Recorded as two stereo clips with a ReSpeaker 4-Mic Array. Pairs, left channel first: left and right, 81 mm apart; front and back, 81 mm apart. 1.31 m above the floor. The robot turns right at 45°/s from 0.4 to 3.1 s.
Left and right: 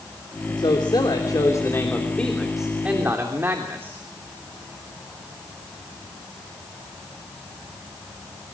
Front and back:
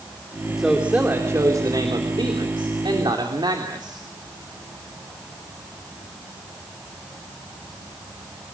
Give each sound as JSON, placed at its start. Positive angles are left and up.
{"t": 0.6, "sound": "a man speaking", "azimuth_deg": 95, "distance_m": 3.0}